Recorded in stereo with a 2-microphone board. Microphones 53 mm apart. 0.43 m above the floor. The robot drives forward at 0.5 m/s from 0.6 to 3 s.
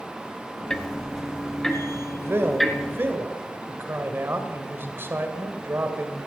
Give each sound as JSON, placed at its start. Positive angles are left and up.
{"t": 0.7, "sound": "ticking", "side_deg": 10, "distance_m": 0.9}
{"t": 2.2, "sound": "a man speaking", "side_deg": -50, "distance_m": 1.7}